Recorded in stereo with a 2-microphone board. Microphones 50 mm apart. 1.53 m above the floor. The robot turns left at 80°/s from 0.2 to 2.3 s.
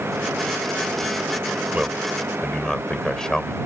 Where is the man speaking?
145° right; by 3.5 s 170° left.